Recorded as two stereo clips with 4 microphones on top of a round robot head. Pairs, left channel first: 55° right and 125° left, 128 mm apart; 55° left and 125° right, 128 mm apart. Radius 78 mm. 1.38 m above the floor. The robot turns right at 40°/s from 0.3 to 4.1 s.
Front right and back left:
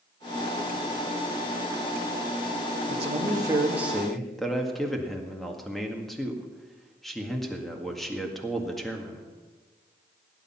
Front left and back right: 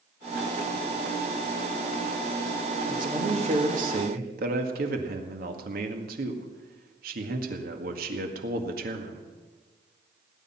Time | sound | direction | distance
2.9 | a man speaking | 170° left | 1.9 m